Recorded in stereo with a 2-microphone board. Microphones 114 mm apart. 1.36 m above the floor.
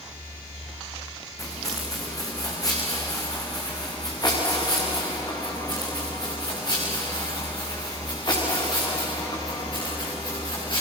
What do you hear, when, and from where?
1.4 s footsteps: 30° left (ahead or behind), 7 m; by 10.8 s 40° left (ahead or behind), 12 m